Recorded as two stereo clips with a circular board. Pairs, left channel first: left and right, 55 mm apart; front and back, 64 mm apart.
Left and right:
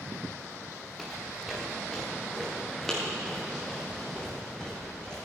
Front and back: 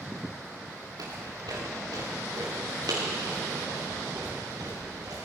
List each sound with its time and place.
1.0 s footsteps: straight behind, 3.5 m; by 5.2 s 170° left, 5.5 m